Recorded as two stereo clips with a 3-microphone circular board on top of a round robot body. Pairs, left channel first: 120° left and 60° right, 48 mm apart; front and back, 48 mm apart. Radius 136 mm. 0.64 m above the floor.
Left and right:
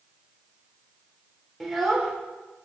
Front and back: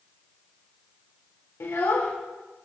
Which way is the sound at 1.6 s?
30° left.